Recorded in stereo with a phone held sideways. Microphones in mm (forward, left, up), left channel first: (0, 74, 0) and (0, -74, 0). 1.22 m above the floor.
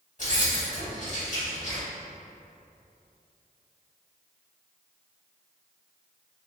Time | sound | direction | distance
0.2 | keys jangling | 50° left (ahead or behind) | 1.8 m